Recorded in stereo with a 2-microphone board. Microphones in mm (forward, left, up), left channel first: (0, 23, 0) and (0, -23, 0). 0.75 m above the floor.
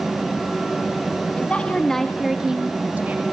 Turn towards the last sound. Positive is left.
turn(degrees=-40)  # may be behind; listen again after turning